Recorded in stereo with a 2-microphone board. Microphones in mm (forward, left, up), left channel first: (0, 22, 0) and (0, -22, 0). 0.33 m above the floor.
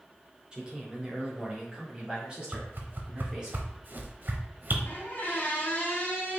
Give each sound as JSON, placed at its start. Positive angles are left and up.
{"t": 0.5, "sound": "a man speaking", "side_deg": -20, "distance_m": 1.1}
{"t": 2.5, "sound": "a whoosh", "side_deg": -45, "distance_m": 0.7}
{"t": 4.8, "sound": "a squeak", "side_deg": 45, "distance_m": 1.4}